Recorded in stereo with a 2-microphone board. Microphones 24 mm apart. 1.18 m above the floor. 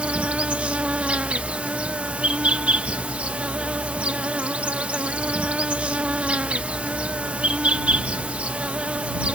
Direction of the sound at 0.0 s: 60° right (ahead or behind).